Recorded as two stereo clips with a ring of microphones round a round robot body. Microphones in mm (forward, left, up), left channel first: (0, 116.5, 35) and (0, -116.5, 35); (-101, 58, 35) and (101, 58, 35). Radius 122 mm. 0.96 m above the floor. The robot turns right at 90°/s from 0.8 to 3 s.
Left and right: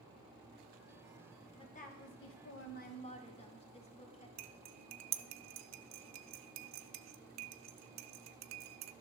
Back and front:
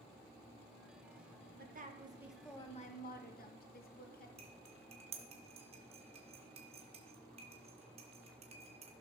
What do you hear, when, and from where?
1.6 s a woman speaking: 20° left, 1.2 m; by 4.3 s 150° left, 1.2 m
4.4 s cutlery clinking: 65° right, 0.5 m